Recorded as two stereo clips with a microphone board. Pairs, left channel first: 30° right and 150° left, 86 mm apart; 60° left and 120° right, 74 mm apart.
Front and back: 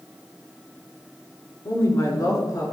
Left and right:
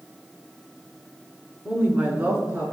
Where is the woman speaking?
50° right, 1.4 m; by 2.7 s 70° right, 2.5 m.